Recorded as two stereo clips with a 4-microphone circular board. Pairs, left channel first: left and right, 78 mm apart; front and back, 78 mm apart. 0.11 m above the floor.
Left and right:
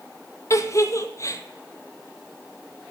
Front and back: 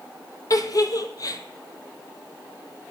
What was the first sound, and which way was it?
A giggle, 40° left.